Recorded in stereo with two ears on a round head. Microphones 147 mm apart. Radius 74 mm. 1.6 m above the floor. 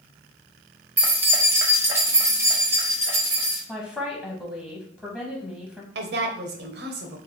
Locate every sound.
1.0 s keys jangling: 10° right (ahead or behind), 0.8 m; by 3.6 s 15° right (ahead or behind), 1.5 m
3.7 s a woman speaking: 5° left (ahead or behind), 0.8 m
6.0 s a woman speaking: 70° right (ahead or behind), 0.8 m